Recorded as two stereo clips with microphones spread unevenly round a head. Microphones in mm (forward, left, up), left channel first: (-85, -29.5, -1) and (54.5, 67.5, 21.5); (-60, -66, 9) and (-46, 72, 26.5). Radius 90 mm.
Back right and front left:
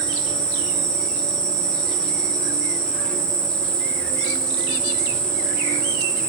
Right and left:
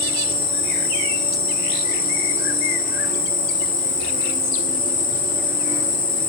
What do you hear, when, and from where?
0.0 s an insect: 60° right, 1.5 m